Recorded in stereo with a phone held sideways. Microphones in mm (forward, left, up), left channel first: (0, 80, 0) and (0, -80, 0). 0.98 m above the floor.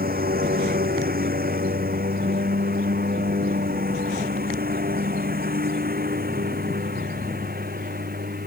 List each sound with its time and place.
0.0 s a lawn mower: 85° right